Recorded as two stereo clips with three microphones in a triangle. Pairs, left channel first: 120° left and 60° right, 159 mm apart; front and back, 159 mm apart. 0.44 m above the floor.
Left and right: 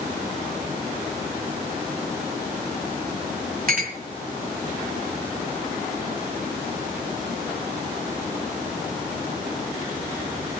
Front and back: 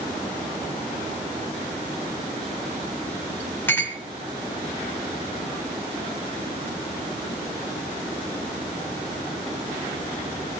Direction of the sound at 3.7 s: 75° right.